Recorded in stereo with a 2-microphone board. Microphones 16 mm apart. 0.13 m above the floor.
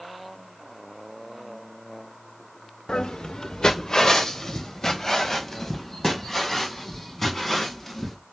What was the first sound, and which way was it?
Footsteps, 65° left (ahead or behind).